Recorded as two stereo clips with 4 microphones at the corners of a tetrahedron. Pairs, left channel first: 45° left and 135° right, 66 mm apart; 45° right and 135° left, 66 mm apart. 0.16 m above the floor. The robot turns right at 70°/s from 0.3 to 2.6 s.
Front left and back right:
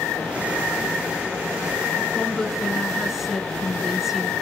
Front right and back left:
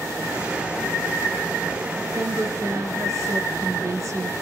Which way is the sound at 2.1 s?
105° left.